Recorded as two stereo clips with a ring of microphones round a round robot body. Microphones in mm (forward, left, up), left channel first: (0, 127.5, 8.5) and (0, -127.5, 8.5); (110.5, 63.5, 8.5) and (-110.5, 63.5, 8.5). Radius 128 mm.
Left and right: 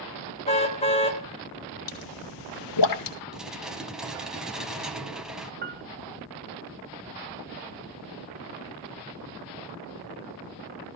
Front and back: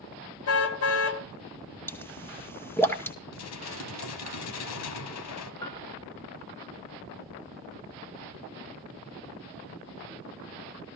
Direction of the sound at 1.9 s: 80° left.